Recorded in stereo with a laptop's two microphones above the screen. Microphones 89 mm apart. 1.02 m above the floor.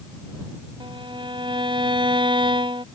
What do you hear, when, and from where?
0.8 s a violin: 75° right (ahead or behind)